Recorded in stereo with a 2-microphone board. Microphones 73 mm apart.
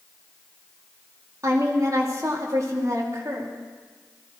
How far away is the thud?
I don't hear a thud.